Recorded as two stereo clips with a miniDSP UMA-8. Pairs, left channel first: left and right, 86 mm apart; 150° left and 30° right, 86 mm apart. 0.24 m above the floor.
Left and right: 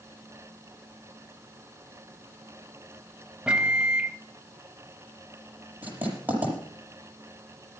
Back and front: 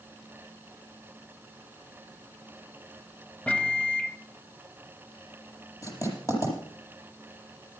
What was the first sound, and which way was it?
A microwave, 155° right.